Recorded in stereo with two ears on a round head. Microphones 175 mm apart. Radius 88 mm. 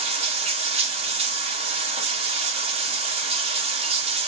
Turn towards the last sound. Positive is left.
turn(degrees=-30)  # may be behind; listen again after turning